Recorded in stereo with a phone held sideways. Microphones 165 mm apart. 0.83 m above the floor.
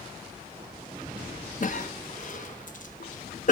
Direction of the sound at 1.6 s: 55° left (ahead or behind).